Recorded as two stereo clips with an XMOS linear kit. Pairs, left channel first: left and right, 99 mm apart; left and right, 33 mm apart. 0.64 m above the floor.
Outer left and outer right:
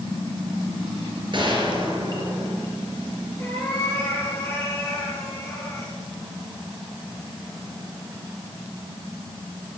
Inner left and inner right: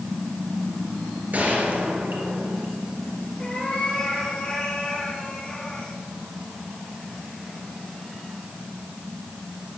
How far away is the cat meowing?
About 5.5 m.